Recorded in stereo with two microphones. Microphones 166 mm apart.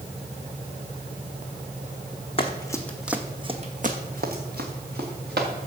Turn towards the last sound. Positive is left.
turn(degrees=-80)